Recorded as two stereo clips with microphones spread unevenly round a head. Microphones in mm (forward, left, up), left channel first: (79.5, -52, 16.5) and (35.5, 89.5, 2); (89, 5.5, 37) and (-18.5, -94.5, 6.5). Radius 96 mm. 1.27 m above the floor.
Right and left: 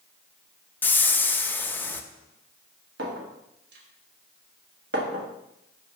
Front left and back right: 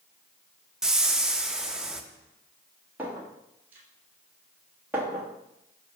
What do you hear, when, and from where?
0.8 s a whoosh: 25° right, 0.5 m
3.0 s a clink: 135° left, 1.1 m